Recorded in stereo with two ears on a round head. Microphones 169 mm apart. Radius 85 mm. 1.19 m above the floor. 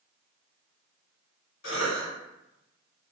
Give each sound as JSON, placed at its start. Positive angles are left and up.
{"t": 1.6, "sound": "a cough", "side_deg": 75, "distance_m": 1.5}